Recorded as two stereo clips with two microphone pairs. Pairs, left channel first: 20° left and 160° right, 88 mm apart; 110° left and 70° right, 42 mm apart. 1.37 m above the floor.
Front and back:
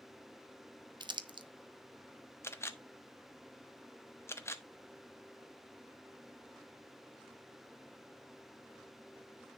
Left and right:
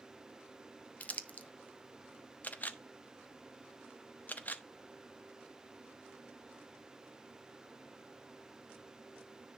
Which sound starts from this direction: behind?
Crumpling, at 1.0 s.